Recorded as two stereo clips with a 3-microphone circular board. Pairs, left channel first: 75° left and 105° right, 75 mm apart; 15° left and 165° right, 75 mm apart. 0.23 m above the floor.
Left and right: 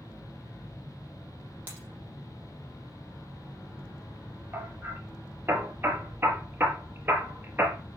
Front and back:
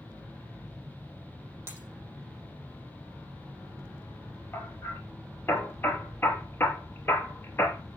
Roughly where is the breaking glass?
Ahead right.